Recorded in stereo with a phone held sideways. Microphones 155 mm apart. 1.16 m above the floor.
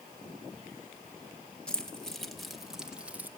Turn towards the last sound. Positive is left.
turn(degrees=-10)  # may be behind; listen again after turning